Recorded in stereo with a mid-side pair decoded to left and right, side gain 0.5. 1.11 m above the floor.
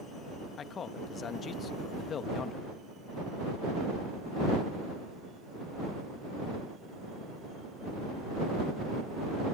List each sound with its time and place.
0.6 s a man speaking: 50° left